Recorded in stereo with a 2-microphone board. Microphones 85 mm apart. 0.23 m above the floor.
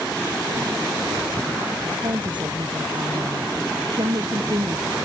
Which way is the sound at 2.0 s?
65° right (ahead or behind).